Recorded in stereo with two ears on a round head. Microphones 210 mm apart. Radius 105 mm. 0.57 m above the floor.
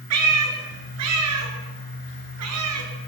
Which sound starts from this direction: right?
A cat meowing, at 0.1 s.